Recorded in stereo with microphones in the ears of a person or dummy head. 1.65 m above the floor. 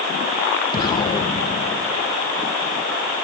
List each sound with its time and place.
0.7 s an explosion: 25° left (ahead or behind), 1.9 m